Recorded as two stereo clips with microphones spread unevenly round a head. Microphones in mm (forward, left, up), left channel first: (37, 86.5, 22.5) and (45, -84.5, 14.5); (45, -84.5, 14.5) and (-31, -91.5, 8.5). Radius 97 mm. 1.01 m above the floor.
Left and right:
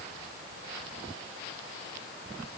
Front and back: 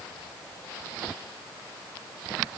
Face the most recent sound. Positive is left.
No sound to turn to.